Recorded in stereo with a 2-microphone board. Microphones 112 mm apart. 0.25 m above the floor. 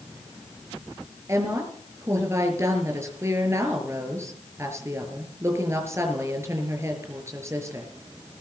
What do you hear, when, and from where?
1.3 s a woman speaking: 25° right (ahead or behind), 5.5 m